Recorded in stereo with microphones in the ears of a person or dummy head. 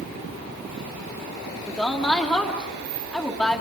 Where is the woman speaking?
5° right (ahead or behind), 3 m.